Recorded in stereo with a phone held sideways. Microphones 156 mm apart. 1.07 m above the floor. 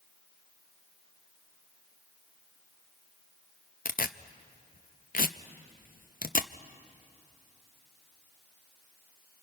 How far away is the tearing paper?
About 0.5 m.